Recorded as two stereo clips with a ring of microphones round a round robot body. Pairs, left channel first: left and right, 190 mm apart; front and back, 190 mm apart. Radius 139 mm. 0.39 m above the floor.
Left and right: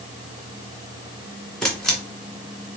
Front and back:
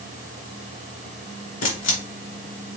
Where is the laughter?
No laughter in this recording.